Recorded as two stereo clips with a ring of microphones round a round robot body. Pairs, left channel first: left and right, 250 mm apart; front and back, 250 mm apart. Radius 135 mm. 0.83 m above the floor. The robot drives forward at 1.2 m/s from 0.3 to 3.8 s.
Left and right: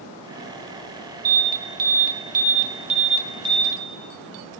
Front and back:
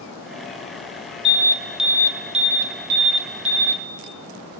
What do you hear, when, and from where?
1.2 s an alarm: 55° right, 1.7 m; by 3.8 s 160° right, 3 m